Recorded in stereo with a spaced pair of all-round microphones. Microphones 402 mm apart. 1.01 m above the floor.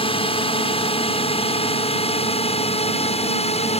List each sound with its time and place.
0.0 s a drone: 15° left (ahead or behind)